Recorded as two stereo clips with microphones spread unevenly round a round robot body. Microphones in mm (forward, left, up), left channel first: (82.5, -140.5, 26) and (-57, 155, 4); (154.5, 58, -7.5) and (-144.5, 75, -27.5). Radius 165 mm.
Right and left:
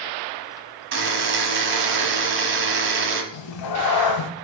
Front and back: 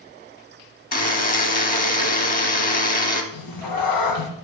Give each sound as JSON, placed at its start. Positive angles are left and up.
{"t": 0.9, "sound": "a buzzer", "azimuth_deg": 60, "distance_m": 0.8}
{"t": 3.3, "sound": "a cat meowing", "azimuth_deg": -40, "distance_m": 0.6}